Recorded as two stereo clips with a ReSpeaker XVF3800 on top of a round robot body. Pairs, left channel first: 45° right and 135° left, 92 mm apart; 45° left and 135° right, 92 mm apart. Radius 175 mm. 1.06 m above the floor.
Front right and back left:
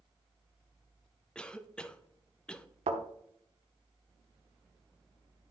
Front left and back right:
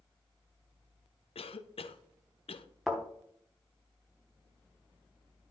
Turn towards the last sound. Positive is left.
turn(degrees=135)